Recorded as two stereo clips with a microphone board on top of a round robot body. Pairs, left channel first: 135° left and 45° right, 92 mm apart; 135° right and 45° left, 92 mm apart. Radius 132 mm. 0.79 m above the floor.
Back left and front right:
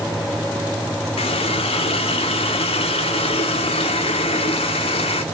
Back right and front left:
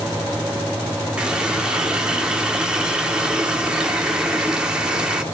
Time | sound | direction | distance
1.2 | a running tap | 125° left | 1.3 m